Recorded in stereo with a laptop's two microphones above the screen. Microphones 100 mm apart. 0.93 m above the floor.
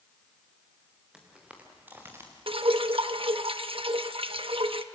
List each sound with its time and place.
1.1 s footsteps: 10° right (ahead or behind), 5.5 m; by 2.3 s 25° right (ahead or behind), 4.5 m
2.5 s dripping: 70° right (ahead or behind), 0.9 m